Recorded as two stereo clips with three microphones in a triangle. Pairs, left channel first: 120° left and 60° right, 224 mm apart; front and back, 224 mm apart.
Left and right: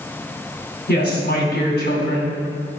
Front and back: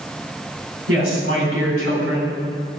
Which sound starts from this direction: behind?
A woman speaking, at 0.9 s.